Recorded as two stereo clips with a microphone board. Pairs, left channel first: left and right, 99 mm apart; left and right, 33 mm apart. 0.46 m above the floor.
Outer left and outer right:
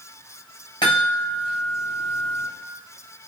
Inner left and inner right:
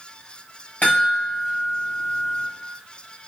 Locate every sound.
0.8 s a chime: 50° left (ahead or behind), 1.9 m